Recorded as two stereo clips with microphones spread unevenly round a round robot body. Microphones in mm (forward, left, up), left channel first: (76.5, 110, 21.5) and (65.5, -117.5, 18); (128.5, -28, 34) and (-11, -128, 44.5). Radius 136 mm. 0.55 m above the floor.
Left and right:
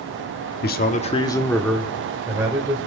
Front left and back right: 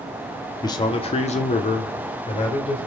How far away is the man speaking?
About 1.2 m.